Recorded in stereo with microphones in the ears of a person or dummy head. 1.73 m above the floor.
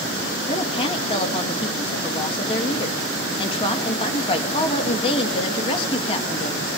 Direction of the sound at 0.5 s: 25° left (ahead or behind).